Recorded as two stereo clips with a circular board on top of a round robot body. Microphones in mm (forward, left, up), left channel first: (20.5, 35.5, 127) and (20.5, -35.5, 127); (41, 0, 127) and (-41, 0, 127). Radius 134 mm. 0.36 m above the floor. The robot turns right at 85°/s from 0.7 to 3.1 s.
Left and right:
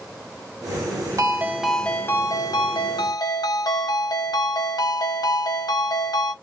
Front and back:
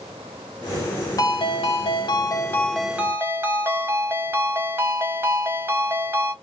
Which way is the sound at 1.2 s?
45° right.